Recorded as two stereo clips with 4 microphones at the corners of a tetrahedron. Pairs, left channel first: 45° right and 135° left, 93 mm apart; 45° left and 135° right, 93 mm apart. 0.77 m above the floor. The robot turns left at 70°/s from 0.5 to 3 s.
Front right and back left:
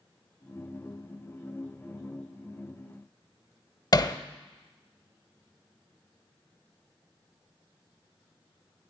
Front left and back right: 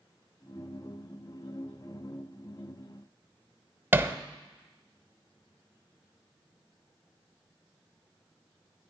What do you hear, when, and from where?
3.9 s hammering: 75° right, 0.6 m